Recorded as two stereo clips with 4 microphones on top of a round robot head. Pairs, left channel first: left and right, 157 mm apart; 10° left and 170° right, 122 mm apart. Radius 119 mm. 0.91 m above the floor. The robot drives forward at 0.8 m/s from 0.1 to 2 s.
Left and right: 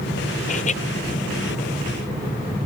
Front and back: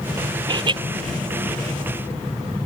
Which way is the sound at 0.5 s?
135° left.